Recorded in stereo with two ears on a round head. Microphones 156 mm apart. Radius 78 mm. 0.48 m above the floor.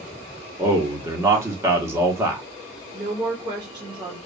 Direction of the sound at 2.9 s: 25° right (ahead or behind).